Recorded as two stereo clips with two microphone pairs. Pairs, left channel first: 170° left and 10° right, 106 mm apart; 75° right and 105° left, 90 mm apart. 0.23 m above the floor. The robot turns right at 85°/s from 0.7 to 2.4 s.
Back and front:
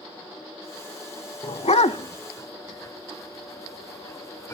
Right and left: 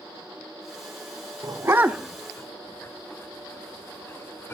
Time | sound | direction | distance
1.4 | a dog barking | 145° left | 0.6 m